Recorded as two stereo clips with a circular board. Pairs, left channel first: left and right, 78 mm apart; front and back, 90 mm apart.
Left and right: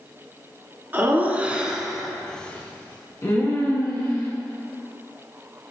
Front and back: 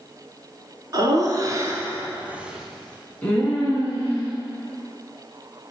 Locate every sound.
0.9 s laughter: 150° right, 1.8 m; by 4.3 s 55° left, 2 m